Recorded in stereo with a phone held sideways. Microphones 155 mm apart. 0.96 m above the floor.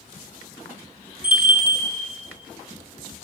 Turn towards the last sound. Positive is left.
turn(degrees=-10)  # may be behind; listen again after turning